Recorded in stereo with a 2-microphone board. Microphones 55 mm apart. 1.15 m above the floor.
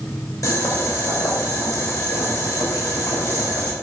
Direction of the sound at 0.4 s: 85° left.